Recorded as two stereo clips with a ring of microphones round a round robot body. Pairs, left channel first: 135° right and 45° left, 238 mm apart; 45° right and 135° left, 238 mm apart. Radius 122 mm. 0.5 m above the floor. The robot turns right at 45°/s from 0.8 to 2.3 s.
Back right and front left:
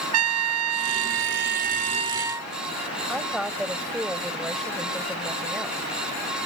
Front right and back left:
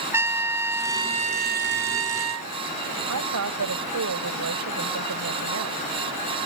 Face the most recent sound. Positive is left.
turn(degrees=135)